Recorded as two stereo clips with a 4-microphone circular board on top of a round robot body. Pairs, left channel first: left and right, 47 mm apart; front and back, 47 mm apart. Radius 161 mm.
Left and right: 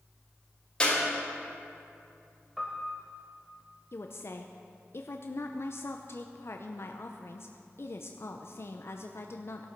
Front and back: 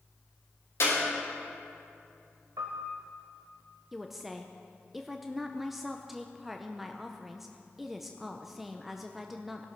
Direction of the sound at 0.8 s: 20° left.